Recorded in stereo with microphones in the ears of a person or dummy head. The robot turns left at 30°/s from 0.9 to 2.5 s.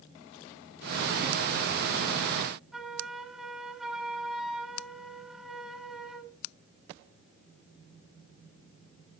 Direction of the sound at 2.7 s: 5° left (ahead or behind).